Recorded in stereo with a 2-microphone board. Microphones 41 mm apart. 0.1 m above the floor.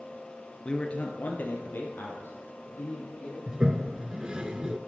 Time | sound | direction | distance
0.7 | a man speaking | 20° left (ahead or behind) | 1.3 m
3.5 | a toilet flushing | 20° right (ahead or behind) | 0.5 m